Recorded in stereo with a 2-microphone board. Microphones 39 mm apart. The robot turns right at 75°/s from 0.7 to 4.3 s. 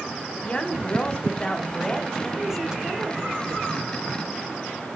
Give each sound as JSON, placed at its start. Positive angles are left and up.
{"t": 0.4, "sound": "a woman speaking", "side_deg": 25, "distance_m": 1.1}